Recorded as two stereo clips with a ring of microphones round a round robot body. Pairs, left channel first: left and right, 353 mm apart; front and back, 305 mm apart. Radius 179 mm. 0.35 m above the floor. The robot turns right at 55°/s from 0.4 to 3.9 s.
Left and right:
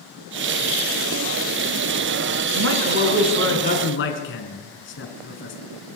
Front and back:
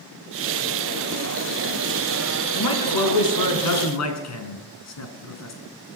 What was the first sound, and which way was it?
A man speaking, 40° right.